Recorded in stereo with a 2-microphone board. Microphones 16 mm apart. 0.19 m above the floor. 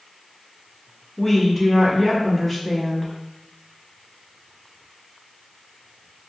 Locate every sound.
1.2 s a woman speaking: 15° left (ahead or behind), 1.0 m